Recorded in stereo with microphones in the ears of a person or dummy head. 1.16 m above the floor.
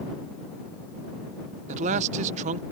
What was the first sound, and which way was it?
A man speaking, 35° right (ahead or behind).